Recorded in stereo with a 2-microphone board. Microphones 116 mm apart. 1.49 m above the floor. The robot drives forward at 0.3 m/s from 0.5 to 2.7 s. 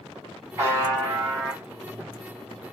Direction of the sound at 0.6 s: 25° right (ahead or behind).